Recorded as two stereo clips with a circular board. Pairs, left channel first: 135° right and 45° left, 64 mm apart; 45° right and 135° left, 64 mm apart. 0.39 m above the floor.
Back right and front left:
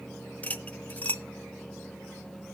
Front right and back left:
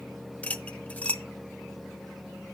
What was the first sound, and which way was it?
Cutlery clinking, 95° right.